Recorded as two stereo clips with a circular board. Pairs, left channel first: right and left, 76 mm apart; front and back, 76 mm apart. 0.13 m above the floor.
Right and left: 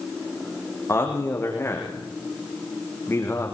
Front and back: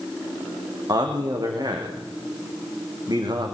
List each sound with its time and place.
0.9 s a man speaking: 150° right, 6 m